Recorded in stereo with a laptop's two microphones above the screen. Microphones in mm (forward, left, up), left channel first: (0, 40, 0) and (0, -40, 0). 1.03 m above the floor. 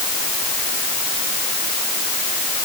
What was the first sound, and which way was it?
Only background noise.